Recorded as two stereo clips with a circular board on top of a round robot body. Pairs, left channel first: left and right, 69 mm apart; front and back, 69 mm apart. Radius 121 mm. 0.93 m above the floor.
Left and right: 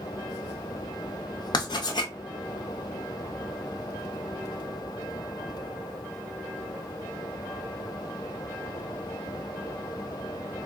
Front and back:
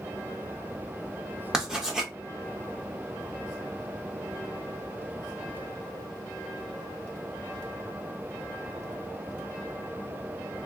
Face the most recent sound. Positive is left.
turn(degrees=100)